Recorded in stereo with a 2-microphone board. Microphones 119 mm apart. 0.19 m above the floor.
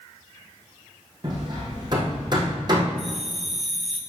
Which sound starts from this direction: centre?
A bell, at 3.0 s.